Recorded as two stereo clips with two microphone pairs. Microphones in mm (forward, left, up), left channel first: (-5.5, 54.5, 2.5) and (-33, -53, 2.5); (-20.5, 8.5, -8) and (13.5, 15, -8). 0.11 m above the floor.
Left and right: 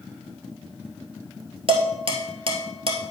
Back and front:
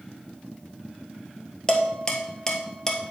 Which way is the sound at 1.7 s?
105° right.